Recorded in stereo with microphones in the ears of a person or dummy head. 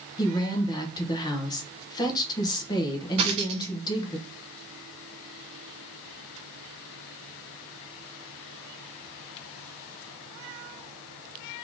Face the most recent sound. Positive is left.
turn(degrees=-35)  # may be behind; listen again after turning